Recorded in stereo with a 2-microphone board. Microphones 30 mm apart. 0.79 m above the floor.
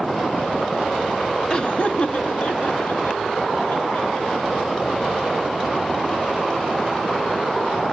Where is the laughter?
25° left (ahead or behind), 0.8 m; by 4.7 s 75° left (ahead or behind), 5 m.